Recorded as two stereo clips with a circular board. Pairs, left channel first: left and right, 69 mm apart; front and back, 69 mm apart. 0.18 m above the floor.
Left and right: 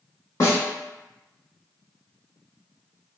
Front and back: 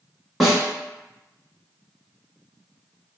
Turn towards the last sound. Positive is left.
turn(degrees=95)